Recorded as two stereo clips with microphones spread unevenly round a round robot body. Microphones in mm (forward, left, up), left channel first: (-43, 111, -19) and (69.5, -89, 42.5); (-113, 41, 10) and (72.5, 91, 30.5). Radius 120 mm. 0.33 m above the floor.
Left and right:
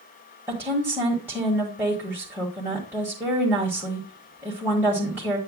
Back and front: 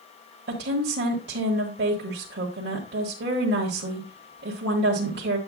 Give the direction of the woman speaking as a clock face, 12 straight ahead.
11 o'clock.